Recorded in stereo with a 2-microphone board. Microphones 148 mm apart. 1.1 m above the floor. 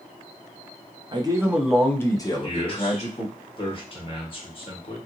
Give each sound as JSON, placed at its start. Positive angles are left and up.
{"t": 1.1, "sound": "a man speaking", "side_deg": -30, "distance_m": 0.6}
{"t": 2.4, "sound": "a man speaking", "side_deg": 40, "distance_m": 1.1}